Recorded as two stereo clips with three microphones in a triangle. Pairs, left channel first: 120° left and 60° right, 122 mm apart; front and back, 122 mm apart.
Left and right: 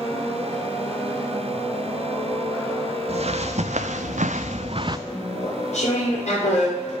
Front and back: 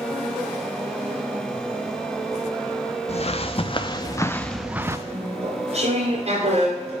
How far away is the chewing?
About 2.5 m.